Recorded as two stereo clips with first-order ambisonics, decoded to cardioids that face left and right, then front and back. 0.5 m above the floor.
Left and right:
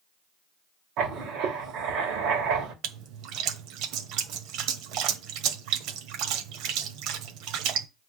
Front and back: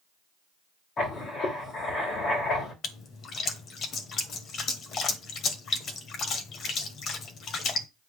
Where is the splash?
60° right, 1.3 m.